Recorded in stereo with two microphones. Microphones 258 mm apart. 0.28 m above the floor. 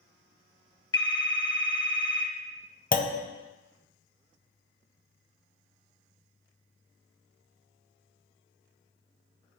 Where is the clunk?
35° left (ahead or behind), 0.5 m.